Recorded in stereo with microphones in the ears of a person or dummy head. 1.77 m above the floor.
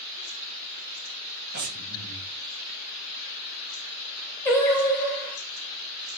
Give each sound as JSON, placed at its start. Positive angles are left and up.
{"t": 1.5, "sound": "breathing", "side_deg": -50, "distance_m": 0.6}
{"t": 4.5, "sound": "singing", "side_deg": 20, "distance_m": 0.7}